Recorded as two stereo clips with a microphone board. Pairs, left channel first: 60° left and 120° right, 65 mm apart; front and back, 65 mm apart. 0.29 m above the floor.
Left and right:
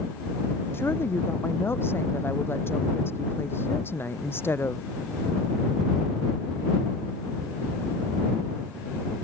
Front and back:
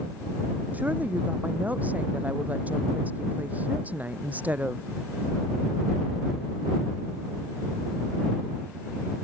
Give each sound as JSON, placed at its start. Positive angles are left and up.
{"t": 0.7, "sound": "a woman speaking", "azimuth_deg": 115}